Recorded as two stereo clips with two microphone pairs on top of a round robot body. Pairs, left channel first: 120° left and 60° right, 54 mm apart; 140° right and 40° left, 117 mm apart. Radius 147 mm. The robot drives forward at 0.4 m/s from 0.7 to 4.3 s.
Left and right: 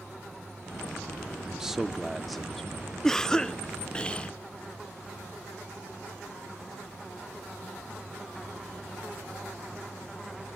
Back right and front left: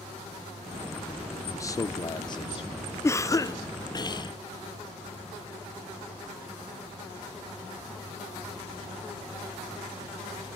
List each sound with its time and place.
1.4 s a man speaking: 115° right, 0.9 m; by 2.9 s 155° right, 1.2 m
3.0 s a cough: 165° right, 0.9 m; by 4.3 s 175° right, 1.1 m